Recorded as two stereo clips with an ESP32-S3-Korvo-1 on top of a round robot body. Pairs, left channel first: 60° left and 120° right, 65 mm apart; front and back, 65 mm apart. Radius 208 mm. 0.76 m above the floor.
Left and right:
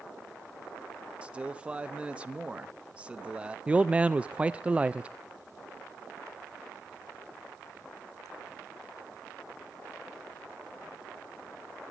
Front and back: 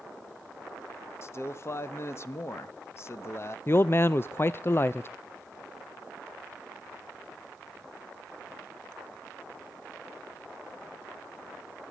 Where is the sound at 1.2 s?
50° right, 1.0 m.